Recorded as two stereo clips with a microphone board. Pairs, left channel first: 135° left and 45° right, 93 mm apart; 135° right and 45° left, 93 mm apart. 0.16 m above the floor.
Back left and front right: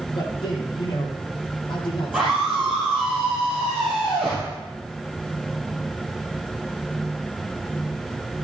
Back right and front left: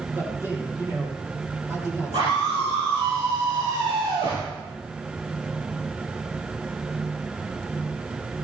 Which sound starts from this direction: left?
A man speaking, at 0.1 s.